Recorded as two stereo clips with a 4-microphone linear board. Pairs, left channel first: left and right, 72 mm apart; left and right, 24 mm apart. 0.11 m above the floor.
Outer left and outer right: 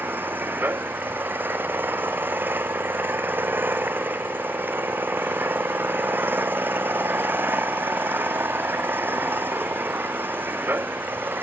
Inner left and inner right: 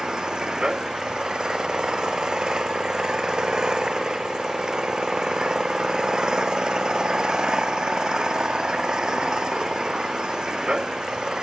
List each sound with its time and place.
0.0 s an engine running: 30° right (ahead or behind)